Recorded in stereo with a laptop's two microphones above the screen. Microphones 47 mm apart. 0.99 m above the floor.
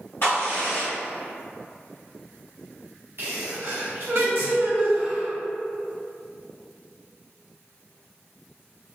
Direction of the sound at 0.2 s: 55° left (ahead or behind).